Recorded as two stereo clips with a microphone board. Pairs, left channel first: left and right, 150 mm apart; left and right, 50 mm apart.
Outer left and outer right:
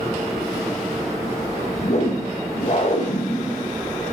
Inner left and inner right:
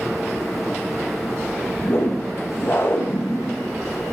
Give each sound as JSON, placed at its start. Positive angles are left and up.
{"t": 1.8, "sound": "a whoosh", "side_deg": 50, "distance_m": 1.0}